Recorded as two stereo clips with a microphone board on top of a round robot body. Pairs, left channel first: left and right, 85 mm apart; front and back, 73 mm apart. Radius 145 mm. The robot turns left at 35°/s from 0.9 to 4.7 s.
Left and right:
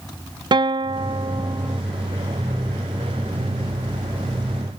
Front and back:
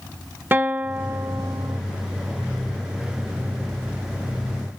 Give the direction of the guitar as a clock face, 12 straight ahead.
4 o'clock.